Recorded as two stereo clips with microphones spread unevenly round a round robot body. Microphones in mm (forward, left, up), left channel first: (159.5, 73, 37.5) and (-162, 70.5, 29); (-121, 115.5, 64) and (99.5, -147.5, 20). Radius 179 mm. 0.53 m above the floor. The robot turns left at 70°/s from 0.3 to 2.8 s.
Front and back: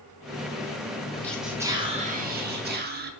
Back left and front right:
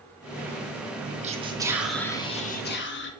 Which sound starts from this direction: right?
Whispering, at 1.2 s.